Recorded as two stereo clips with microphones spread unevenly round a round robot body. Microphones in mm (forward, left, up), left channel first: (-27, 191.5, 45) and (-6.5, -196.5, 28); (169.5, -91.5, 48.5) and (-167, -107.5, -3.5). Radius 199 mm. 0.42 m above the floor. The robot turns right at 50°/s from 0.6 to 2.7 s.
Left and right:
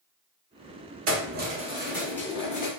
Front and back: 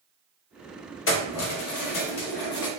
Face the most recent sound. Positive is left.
turn(degrees=35)